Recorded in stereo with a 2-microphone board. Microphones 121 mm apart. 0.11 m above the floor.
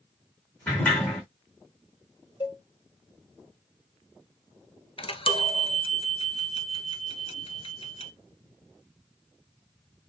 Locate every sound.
0.7 s a sliding door: 15° left (ahead or behind), 3.5 m
2.4 s a cowbell: 45° left (ahead or behind), 1.2 m
5.0 s a chime: 50° left (ahead or behind), 0.6 m